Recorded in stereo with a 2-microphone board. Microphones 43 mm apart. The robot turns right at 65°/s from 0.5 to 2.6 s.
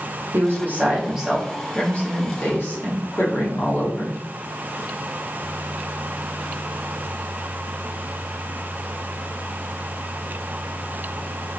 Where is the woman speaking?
60° right, 1.1 m; by 4.2 s 75° left, 1.1 m.